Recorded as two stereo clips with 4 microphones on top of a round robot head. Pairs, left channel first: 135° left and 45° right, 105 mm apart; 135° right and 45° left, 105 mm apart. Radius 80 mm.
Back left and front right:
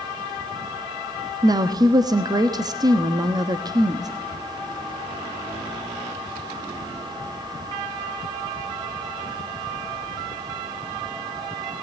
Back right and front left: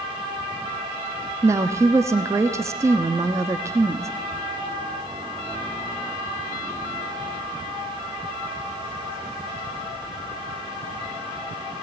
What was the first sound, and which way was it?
A woman speaking, 10° right.